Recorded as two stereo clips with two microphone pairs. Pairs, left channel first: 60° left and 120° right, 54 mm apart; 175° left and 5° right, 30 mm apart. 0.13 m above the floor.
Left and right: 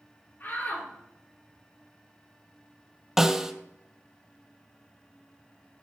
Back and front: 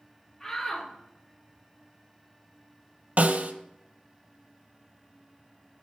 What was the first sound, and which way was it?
A shout, 105° left.